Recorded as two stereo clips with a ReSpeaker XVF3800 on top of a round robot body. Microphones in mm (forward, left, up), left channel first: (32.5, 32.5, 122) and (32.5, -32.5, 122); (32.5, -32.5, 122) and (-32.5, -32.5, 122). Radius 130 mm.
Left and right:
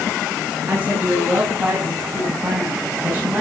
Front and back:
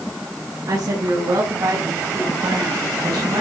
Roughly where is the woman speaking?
Behind right.